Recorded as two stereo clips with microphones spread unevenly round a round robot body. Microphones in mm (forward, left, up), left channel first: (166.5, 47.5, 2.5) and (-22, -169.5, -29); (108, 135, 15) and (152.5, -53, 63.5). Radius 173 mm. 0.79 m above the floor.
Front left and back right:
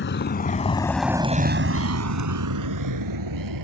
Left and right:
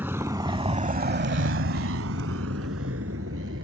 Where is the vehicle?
Straight ahead; by 3.6 s 130° right.